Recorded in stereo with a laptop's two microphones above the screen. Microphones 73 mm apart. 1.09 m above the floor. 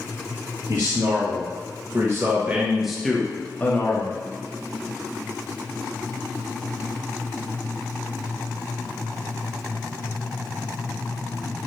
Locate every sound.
0.7 s a man speaking: 60° right (ahead or behind), 1.4 m; by 4.2 s 40° left (ahead or behind), 1.0 m